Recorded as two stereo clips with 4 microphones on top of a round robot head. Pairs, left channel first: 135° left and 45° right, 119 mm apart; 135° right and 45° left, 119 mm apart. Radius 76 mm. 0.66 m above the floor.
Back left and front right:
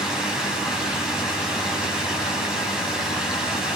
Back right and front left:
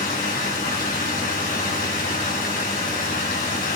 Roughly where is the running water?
Behind right.